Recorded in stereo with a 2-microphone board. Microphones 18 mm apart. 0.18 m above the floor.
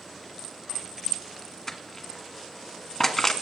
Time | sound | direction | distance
1.7 | crushing | 15° left (ahead or behind) | 1.3 m